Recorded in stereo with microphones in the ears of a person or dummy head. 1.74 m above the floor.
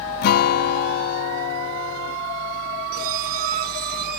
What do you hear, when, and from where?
0.2 s a guitar: 55° left (ahead or behind)
2.9 s a squeak: 50° right (ahead or behind)